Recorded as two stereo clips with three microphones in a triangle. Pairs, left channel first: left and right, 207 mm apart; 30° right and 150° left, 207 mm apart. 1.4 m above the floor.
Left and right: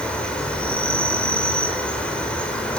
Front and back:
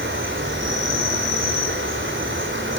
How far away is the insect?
About 5 m.